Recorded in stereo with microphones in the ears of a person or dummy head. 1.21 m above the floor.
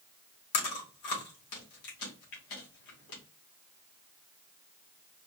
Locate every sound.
0.5 s chewing: 55° left (ahead or behind), 1.6 m